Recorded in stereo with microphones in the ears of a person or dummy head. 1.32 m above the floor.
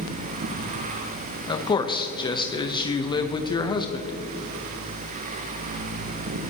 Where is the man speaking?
30° left (ahead or behind), 0.9 m.